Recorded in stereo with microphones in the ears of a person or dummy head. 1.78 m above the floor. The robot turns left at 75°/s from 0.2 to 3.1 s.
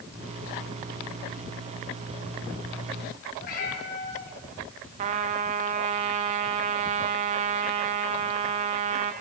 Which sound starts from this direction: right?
A trumpet, at 5.0 s.